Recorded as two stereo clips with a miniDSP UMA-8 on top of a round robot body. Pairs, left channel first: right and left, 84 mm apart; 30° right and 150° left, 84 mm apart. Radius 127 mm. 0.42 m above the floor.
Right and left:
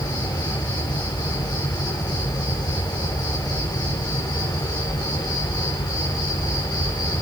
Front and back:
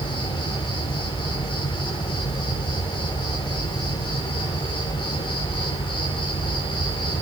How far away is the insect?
About 9 m.